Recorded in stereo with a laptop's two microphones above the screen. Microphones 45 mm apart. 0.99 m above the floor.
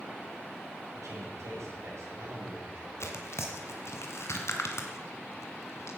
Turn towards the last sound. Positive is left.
turn(degrees=65)  # may be behind; listen again after turning